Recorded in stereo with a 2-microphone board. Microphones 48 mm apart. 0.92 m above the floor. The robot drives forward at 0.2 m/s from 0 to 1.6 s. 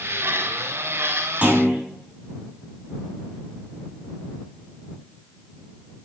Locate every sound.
1.4 s a clunk: 25° right (ahead or behind), 3.5 m